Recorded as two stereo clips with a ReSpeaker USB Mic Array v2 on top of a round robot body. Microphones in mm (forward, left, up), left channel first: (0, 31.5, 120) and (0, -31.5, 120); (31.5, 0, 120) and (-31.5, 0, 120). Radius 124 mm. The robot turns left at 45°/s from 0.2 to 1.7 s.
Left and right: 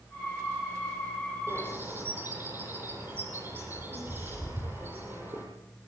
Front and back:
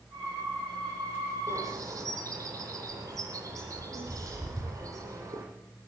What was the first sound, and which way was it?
A bird, 135° right.